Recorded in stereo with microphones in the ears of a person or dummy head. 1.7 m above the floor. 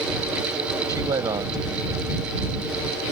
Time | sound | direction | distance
0.9 | a man speaking | 25° right (ahead or behind) | ?